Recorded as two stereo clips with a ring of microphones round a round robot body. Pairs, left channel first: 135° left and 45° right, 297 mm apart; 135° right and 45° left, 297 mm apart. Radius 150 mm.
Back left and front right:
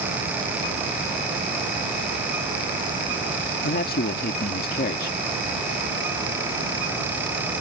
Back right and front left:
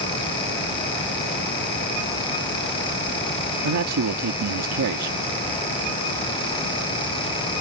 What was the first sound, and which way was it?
A man speaking, 75° left.